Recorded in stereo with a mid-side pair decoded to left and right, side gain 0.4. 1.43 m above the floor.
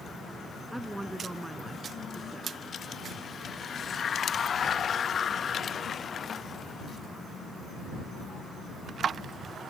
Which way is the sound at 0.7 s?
10° right.